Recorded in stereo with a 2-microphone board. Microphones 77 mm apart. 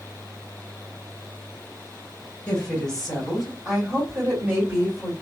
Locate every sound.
2.5 s a woman speaking: 15° left (ahead or behind), 1.8 m; by 5.1 s 25° right (ahead or behind), 2 m